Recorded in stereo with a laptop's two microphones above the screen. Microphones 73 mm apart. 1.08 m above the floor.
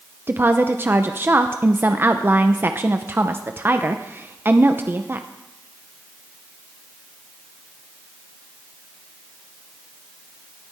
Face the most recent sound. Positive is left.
turn(degrees=-30)  # may be behind; listen again after turning